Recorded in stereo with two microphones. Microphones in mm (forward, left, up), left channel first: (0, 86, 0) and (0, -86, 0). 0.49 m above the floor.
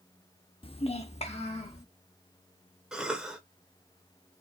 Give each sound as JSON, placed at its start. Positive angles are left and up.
{"t": 0.6, "sound": "a child speaking", "side_deg": 35, "distance_m": 0.5}
{"t": 2.9, "sound": "a cough", "side_deg": -5, "distance_m": 1.3}